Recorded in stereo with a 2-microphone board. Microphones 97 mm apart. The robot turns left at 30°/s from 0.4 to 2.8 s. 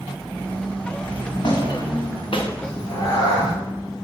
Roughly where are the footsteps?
Left.